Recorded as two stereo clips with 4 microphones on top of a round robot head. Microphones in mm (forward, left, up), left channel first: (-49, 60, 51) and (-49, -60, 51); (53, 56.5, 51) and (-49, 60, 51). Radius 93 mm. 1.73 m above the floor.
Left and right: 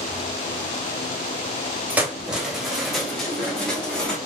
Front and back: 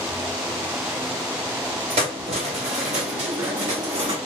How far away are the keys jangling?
About 0.8 m.